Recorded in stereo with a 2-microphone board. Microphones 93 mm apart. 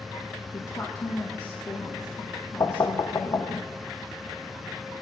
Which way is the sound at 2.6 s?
40° left (ahead or behind).